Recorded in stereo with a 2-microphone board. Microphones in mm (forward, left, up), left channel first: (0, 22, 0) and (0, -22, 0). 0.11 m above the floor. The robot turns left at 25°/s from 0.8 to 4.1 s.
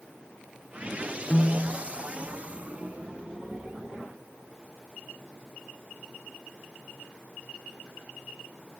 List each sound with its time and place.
1.3 s a piano: 20° left (ahead or behind), 0.5 m; by 1.8 s 25° left (ahead or behind), 0.5 m